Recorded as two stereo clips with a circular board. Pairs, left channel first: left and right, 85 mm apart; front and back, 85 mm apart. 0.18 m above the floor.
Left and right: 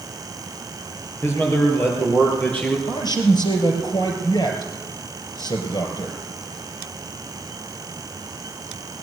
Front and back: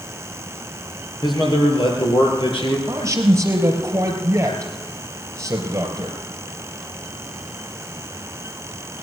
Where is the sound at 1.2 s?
30° left, 3.5 m; by 2.8 s 15° left, 4.5 m.